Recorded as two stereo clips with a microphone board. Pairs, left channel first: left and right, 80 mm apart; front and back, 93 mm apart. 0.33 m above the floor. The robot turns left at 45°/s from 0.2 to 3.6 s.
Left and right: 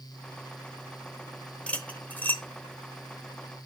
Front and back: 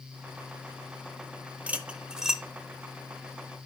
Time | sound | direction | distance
1.7 | cutlery clinking | 135° left | 0.6 m